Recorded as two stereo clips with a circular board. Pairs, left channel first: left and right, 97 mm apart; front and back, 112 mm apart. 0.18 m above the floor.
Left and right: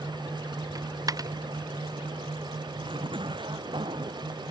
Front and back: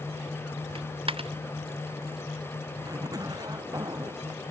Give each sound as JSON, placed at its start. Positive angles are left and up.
{"t": 0.8, "sound": "a dropped coin", "azimuth_deg": -140}
{"t": 2.8, "sound": "a zipper", "azimuth_deg": -125}